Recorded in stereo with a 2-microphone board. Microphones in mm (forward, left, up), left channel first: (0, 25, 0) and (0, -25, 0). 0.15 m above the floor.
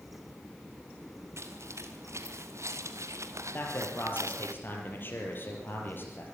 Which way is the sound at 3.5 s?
40° left (ahead or behind).